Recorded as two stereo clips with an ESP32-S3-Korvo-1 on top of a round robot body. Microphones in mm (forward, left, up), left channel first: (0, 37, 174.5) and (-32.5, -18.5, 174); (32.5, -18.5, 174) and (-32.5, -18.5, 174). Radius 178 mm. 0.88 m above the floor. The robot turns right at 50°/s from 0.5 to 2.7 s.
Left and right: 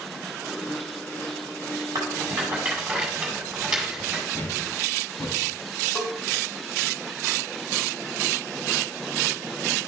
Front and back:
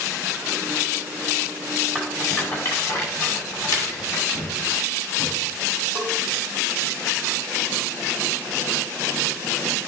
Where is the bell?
55° left, 1.7 m.